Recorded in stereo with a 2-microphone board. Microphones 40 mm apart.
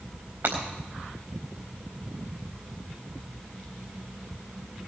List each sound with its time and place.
0.4 s breaking glass: 75° right (ahead or behind), 4 m